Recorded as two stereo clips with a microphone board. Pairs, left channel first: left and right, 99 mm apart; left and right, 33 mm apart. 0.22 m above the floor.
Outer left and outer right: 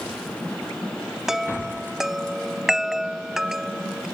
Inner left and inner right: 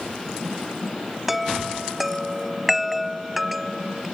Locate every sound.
1.3 s a chime: 5° right (ahead or behind)